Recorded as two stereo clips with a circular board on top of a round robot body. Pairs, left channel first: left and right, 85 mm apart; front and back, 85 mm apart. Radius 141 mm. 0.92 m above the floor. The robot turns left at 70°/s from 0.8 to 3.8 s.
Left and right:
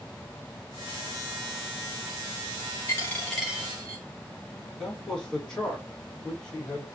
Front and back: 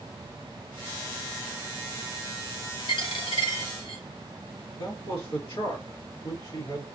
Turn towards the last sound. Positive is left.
turn(degrees=10)